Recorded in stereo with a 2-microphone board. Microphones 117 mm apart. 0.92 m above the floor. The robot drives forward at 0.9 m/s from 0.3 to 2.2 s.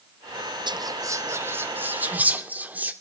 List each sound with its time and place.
0.7 s whispering: 40° right (ahead or behind), 0.8 m; by 2.9 s 15° right (ahead or behind), 2.0 m